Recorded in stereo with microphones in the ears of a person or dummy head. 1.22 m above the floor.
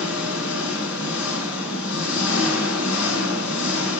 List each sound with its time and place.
0.0 s an engine running: 75° left (ahead or behind), 5.5 m